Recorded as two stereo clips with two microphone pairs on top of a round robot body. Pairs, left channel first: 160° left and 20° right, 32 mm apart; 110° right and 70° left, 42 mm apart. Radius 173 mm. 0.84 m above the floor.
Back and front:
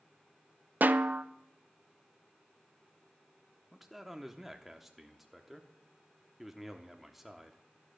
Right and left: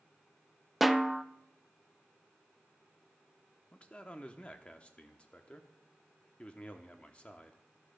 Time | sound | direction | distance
0.8 | a snare drum | 25° right | 0.5 m
3.7 | a man speaking | 115° right | 1.0 m